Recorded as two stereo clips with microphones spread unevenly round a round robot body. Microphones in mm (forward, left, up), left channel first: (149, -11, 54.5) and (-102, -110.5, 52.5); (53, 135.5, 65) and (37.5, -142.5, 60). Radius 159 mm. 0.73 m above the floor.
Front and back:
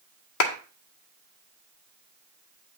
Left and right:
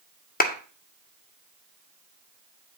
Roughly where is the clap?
Ahead left.